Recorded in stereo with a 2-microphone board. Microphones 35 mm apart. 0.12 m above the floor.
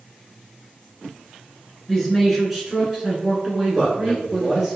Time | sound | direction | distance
1.9 | a man speaking | 5° left (ahead or behind) | 1.3 m
3.7 | a man speaking | 20° right (ahead or behind) | 1.5 m